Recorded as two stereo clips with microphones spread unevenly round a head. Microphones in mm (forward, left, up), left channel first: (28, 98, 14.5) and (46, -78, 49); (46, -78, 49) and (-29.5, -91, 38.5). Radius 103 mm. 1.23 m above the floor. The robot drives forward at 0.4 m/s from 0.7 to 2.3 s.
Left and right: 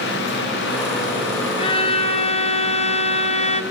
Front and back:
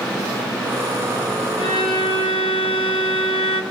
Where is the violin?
35° left, 1.8 m; by 3.6 s 40° left, 1.6 m.